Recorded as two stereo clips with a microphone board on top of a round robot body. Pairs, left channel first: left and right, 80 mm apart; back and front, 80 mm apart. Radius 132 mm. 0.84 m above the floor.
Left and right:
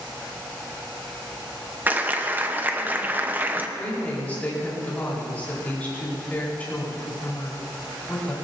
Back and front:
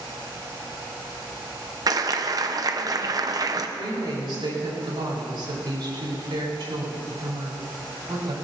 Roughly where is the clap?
Ahead right.